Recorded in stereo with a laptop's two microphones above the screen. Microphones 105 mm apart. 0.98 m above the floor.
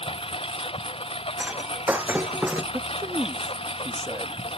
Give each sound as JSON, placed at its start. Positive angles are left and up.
{"t": 0.0, "sound": "a lawn mower", "side_deg": 60}
{"t": 1.4, "sound": "breaking glass", "side_deg": -15}
{"t": 2.7, "sound": "a man speaking", "side_deg": -25}